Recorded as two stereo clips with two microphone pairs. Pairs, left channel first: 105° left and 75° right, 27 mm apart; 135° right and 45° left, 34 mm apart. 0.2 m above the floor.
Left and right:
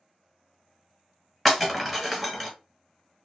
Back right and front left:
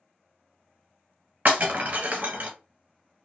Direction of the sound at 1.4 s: 20° left.